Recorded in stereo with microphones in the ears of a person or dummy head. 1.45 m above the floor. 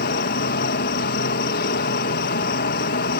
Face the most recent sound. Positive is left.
turn(degrees=60)  # may be behind; listen again after turning